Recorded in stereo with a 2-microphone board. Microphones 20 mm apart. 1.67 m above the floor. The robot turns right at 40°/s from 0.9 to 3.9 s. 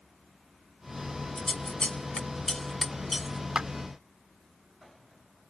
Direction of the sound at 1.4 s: 70° left (ahead or behind).